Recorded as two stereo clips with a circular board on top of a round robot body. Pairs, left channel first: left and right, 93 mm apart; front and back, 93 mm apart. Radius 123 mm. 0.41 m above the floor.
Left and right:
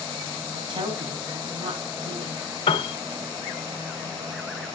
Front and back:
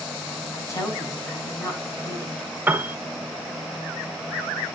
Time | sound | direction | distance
0.5 | a woman speaking | 60° right | 5 m
2.7 | a piano | 110° left | 1.1 m